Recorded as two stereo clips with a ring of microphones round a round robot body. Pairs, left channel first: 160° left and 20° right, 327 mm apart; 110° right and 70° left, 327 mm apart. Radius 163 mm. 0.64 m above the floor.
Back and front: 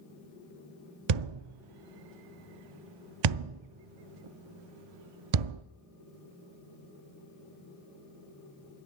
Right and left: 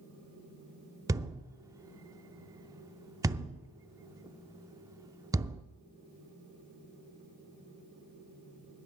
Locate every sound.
1.1 s a thud: 15° right, 0.5 m